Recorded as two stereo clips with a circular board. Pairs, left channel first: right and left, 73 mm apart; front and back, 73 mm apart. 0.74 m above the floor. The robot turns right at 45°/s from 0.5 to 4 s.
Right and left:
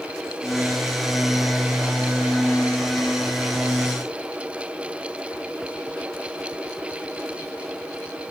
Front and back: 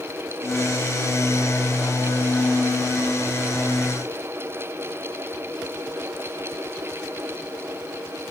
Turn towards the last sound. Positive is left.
No sound to turn to.